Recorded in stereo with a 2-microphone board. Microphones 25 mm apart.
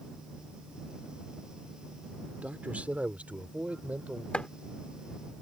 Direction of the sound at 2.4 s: 65° right (ahead or behind).